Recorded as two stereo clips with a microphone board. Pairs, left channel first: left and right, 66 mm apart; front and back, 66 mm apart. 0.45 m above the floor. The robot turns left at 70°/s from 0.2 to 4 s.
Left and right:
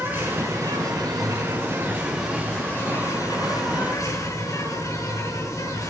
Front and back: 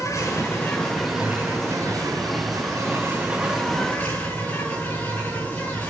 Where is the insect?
30° right, 7.5 m; by 5.9 s 65° left, 7.5 m.